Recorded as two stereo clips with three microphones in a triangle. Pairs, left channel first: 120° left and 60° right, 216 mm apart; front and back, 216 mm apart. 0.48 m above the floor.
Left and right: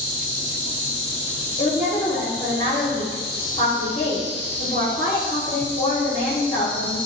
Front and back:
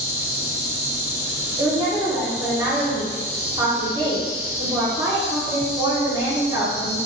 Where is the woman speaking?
130° left, 0.7 m.